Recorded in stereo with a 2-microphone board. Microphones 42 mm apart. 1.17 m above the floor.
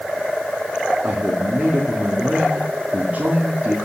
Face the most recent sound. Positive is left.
turn(degrees=-40)  # may be behind; listen again after turning